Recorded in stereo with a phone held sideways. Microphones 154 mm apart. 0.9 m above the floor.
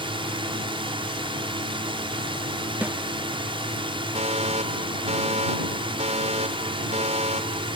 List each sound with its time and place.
0.0 s a drone: 35° right (ahead or behind)
2.8 s a snare drum: 10° right (ahead or behind)
4.2 s a fire alarm: 50° right (ahead or behind)